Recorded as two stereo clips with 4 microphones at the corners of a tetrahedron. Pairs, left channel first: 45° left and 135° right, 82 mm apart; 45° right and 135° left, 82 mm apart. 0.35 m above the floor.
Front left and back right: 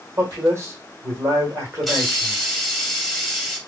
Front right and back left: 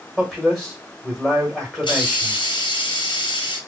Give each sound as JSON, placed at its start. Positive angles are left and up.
{"t": 0.2, "sound": "a man speaking", "azimuth_deg": -135, "distance_m": 1.4}
{"t": 1.8, "sound": "a hiss", "azimuth_deg": -45, "distance_m": 0.9}